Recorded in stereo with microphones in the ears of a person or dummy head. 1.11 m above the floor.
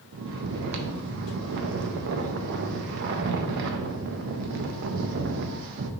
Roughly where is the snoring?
Right.